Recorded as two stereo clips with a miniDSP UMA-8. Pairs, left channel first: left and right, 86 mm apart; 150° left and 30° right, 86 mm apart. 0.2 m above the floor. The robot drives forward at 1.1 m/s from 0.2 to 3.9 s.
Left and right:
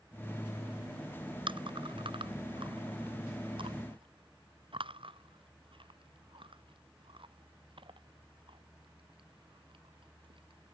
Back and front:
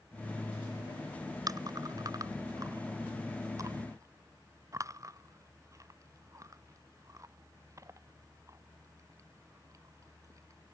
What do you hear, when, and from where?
1.5 s chewing: 75° right; by 10.8 s 80° right